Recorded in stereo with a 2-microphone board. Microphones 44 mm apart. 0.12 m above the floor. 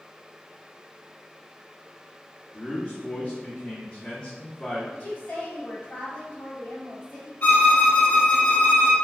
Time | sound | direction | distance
2.5 | a man speaking | 25° left (ahead or behind) | 1.8 m
4.9 | a woman speaking | 30° left (ahead or behind) | 1.6 m
7.4 | a violin | 45° left (ahead or behind) | 0.7 m